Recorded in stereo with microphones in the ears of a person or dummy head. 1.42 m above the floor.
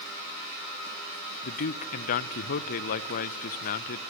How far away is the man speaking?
About 0.7 m.